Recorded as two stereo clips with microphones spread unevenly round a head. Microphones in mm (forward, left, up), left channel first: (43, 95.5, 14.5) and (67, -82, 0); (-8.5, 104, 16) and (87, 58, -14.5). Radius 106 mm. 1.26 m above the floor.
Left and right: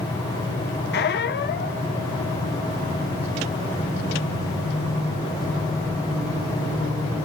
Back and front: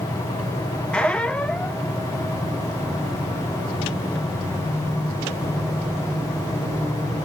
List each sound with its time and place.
0.9 s a squeak: 80° left, 1.5 m